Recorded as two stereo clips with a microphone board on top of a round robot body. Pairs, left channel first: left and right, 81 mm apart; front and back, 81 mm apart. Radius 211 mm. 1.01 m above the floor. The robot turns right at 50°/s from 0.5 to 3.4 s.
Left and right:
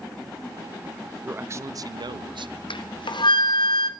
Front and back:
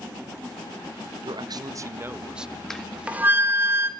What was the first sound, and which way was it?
A man speaking, 160° right.